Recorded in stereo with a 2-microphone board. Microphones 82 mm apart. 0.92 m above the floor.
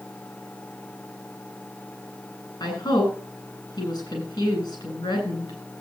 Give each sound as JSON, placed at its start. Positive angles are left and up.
{"t": 2.6, "sound": "a woman speaking", "side_deg": 50, "distance_m": 10.0}